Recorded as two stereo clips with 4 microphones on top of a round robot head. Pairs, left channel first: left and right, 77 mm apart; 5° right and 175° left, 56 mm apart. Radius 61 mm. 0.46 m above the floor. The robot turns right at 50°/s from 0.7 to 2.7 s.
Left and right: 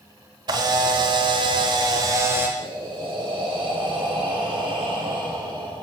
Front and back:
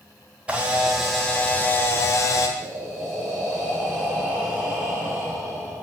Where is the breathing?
105° right, 3 m; by 5.8 s 100° right, 3 m.